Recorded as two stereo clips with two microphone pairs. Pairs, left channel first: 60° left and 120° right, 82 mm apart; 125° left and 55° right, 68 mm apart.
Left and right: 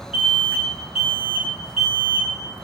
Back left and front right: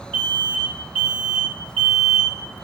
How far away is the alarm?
About 2 m.